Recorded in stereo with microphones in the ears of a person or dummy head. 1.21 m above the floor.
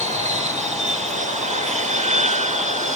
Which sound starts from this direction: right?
An aircraft, at 0.0 s.